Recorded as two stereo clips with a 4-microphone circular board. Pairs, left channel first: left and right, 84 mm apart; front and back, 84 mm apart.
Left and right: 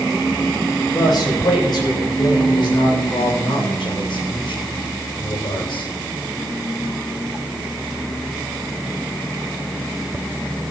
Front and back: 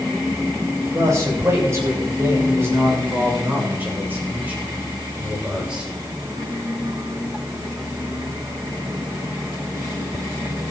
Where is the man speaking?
130° left, 8.5 m; by 6.0 s 100° left, 7 m.